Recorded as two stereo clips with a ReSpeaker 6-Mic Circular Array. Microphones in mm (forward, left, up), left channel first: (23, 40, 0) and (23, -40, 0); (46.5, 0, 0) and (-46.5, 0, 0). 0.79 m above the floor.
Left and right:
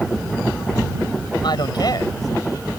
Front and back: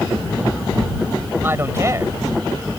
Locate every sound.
1.4 s a man speaking: 115° left; by 2.7 s 130° left